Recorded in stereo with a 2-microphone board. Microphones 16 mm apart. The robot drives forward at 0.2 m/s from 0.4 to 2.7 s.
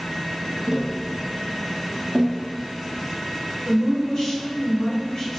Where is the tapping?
25° right (ahead or behind), 0.7 m; by 2.4 s 20° right (ahead or behind), 1.0 m.